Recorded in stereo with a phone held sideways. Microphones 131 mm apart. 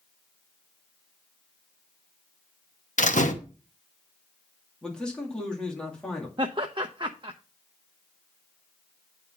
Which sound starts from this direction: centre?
A man speaking, at 4.8 s.